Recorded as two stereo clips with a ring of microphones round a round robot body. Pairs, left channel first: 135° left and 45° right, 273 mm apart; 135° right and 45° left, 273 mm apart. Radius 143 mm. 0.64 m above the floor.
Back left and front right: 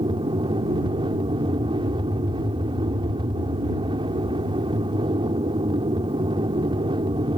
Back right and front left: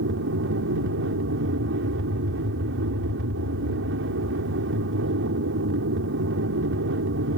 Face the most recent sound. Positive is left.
turn(degrees=20)